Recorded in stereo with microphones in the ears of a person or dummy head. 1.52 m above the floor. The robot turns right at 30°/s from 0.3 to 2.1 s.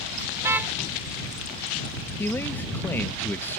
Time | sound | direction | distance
0.4 | a car horn | 15° right (ahead or behind) | ?
2.2 | a man speaking | 10° left (ahead or behind) | ?